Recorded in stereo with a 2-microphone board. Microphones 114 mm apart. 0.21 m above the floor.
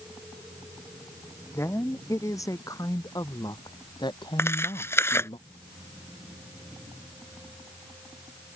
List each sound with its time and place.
1.5 s a woman speaking: 25° left (ahead or behind); by 5.4 s 50° left (ahead or behind)
4.4 s tearing paper: 25° left (ahead or behind)